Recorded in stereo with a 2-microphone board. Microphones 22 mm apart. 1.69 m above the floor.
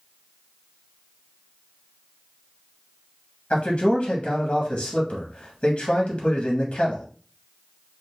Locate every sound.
3.5 s a man speaking: 45° left (ahead or behind), 0.8 m